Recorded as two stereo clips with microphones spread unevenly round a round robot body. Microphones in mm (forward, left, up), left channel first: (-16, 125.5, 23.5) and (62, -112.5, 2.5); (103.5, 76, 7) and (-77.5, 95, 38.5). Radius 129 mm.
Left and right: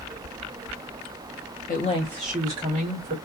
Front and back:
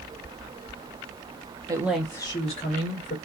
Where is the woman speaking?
105° left, 0.7 m; by 3.1 s 20° right, 1.3 m.